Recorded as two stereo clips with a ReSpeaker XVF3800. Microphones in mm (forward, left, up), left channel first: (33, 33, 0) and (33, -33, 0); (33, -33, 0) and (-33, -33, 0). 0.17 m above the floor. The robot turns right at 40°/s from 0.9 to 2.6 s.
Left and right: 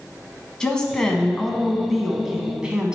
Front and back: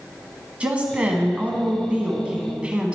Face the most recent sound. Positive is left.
turn(degrees=-140)